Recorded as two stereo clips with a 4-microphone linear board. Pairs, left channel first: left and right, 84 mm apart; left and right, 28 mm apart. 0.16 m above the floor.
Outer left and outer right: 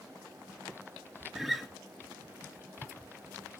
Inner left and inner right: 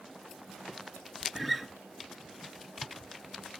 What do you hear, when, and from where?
1.4 s a guitar: centre (ahead or behind), 1.1 m